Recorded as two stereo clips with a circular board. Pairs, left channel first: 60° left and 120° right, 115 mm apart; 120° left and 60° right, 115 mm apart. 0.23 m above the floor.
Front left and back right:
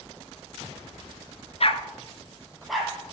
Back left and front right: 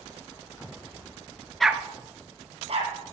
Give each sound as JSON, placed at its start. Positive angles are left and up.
{"t": 1.6, "sound": "a dog barking", "azimuth_deg": 30, "distance_m": 0.8}